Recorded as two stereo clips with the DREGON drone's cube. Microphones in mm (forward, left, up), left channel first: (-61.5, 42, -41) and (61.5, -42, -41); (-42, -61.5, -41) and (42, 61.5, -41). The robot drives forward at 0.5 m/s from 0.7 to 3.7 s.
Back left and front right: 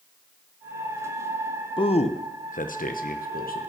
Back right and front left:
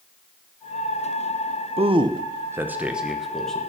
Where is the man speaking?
95° left, 0.6 m; by 3.7 s 150° left, 1.2 m.